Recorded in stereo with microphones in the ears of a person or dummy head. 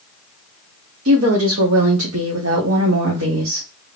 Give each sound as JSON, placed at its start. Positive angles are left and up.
{"t": 1.1, "sound": "a woman speaking", "side_deg": -80, "distance_m": 1.3}